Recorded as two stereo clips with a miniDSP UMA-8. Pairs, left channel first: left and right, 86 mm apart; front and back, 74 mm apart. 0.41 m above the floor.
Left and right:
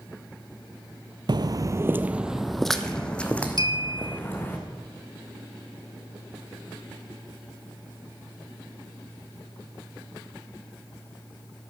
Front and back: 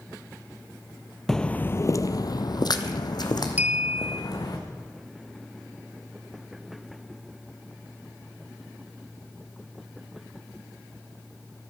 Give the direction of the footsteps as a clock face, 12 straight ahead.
3 o'clock.